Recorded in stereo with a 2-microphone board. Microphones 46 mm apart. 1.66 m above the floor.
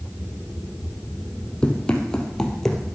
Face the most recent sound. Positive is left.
turn(degrees=5)  # may be behind; listen again after turning